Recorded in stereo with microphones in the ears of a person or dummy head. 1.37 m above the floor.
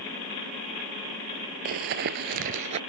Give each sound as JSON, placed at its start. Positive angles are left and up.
{"t": 1.6, "sound": "running footsteps", "side_deg": -45}